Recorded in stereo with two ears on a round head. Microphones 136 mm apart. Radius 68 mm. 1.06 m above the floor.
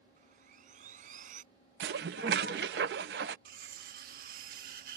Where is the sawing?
55° right (ahead or behind).